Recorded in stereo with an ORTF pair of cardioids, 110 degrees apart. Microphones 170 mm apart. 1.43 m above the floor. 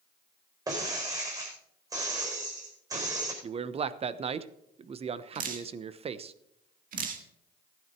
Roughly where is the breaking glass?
Ahead right.